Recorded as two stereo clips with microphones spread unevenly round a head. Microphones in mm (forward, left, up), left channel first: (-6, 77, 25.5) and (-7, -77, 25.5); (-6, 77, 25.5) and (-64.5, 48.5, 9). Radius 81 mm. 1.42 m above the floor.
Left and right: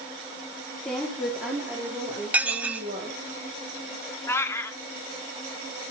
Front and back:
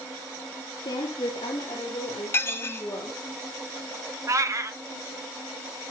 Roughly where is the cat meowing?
Behind.